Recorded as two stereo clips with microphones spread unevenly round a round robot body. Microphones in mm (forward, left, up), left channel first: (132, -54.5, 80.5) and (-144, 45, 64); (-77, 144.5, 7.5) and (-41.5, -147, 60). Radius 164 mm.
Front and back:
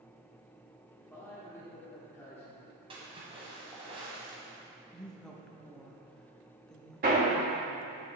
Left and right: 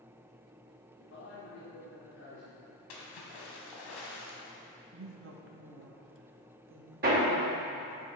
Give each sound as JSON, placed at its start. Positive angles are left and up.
{"t": 1.0, "sound": "a man speaking", "azimuth_deg": 65, "distance_m": 1.5}
{"t": 2.9, "sound": "a splash", "azimuth_deg": 85, "distance_m": 1.5}
{"t": 4.9, "sound": "a woman speaking", "azimuth_deg": -110, "distance_m": 1.0}
{"t": 7.0, "sound": "hammering", "azimuth_deg": -145, "distance_m": 2.0}